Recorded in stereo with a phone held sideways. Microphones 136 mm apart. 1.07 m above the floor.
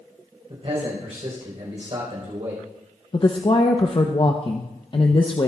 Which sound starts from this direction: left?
A woman speaking, at 3.1 s.